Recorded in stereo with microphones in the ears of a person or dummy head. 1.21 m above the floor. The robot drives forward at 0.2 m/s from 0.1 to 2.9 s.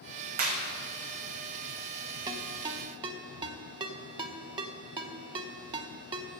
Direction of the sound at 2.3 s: 25° right (ahead or behind).